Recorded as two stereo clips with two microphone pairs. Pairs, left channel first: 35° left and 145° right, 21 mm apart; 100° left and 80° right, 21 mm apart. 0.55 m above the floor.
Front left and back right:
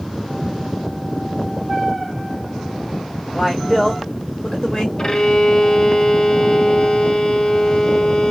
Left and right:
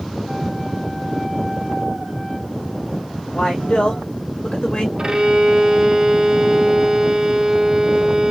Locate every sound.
3.3 s a man speaking: 130° left, 1.8 m; by 4.9 s 75° left, 1.1 m
5.0 s a violin: 20° right, 0.6 m